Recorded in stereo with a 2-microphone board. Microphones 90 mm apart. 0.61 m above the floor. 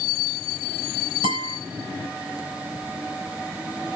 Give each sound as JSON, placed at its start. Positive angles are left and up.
{"t": 1.2, "sound": "a guitar", "side_deg": -80, "distance_m": 3.5}